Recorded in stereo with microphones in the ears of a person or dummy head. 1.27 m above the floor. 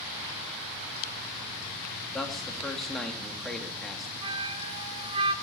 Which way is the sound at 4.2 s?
25° right (ahead or behind).